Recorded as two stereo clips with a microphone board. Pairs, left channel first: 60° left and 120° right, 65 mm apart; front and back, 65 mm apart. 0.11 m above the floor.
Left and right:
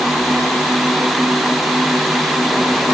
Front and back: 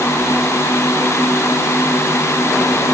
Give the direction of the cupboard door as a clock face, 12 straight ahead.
No cupboard door in this recording.